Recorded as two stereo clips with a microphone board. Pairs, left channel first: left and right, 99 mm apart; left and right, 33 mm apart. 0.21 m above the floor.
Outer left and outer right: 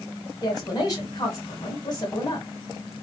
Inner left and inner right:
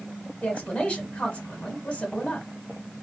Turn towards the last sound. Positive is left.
turn(degrees=40)  # may be behind; listen again after turning